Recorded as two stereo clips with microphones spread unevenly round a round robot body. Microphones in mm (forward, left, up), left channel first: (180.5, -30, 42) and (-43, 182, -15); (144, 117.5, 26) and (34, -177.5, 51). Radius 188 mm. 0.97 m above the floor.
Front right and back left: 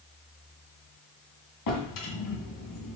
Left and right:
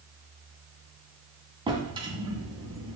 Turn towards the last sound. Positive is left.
turn(degrees=-35)